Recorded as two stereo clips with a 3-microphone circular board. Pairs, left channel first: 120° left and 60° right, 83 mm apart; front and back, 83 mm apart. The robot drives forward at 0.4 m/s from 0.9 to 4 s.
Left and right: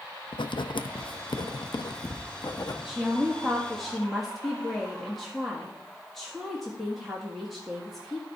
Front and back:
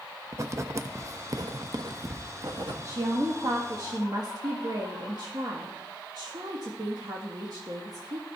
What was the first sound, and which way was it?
Writing, 130° left.